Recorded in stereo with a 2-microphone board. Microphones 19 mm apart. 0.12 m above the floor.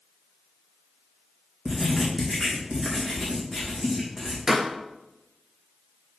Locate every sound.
1.6 s writing: 10° right (ahead or behind), 3 m
4.5 s a pop: 25° right (ahead or behind), 1.1 m